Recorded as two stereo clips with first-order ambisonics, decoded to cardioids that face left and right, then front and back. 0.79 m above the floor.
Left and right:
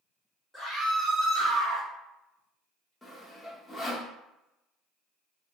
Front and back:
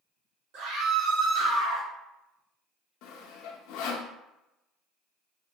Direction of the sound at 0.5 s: 175° left.